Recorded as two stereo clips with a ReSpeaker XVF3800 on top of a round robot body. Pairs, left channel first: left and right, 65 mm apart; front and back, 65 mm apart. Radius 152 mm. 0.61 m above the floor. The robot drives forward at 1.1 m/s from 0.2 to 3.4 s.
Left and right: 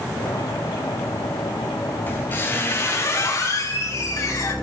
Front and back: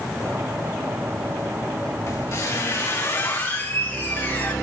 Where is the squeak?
35° left, 3.5 m; by 4.5 s 55° left, 2 m.